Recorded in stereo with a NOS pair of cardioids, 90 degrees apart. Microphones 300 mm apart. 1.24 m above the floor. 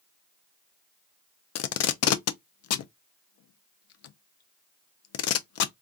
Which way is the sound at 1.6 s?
55° left.